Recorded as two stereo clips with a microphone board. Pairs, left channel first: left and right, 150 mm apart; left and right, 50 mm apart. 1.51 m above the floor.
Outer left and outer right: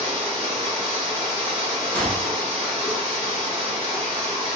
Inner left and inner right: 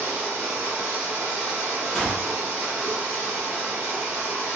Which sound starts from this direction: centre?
A gunshot, at 1.9 s.